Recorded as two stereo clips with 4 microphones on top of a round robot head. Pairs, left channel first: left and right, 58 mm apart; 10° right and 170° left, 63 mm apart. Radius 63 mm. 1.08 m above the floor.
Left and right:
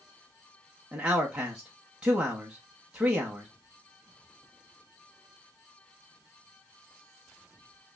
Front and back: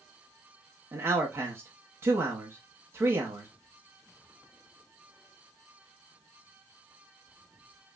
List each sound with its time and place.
0.9 s a man speaking: 160° right, 1.0 m